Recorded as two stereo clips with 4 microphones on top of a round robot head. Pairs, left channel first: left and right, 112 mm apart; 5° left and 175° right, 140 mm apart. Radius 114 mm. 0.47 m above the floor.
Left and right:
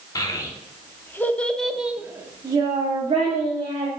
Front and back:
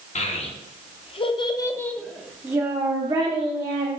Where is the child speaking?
35° left, 1.1 m; by 3.9 s 130° right, 1.1 m.